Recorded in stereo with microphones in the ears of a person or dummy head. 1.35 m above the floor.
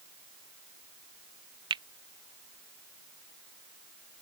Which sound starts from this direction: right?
A finger snap, at 1.7 s.